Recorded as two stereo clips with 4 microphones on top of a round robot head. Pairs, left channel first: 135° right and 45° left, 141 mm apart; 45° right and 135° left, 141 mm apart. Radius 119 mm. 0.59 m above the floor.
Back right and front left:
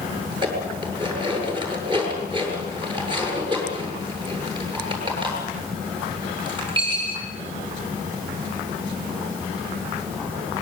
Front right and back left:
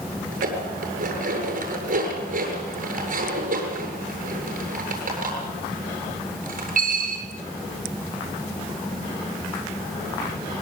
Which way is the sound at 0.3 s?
105° left.